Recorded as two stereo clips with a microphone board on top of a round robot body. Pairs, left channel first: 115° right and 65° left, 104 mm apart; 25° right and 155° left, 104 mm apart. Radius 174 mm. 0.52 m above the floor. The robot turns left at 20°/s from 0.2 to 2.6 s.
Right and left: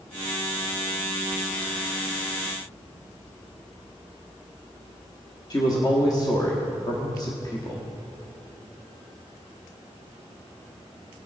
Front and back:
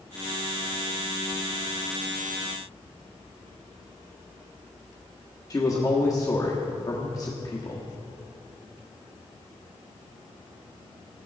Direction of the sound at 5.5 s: 70° right.